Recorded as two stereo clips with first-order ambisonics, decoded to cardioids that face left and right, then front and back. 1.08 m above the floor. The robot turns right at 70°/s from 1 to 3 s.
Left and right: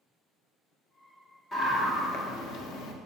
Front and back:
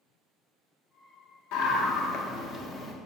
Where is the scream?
10° left, 1.4 m; by 2.9 s 110° left, 1.4 m.